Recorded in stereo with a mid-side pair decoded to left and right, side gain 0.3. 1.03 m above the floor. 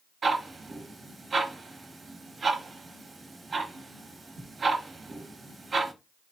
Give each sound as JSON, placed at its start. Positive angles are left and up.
{"t": 0.2, "sound": "ticking", "azimuth_deg": -60, "distance_m": 1.2}